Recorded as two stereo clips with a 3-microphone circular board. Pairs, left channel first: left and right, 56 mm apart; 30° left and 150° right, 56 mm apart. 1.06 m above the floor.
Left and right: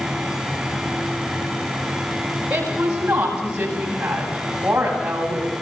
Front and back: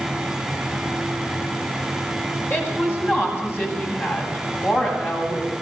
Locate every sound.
2.5 s a woman speaking: 20° right, 8 m